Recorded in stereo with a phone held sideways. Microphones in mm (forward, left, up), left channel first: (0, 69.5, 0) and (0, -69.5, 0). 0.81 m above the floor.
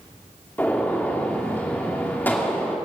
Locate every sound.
0.6 s a gunshot: 15° left (ahead or behind), 2.5 m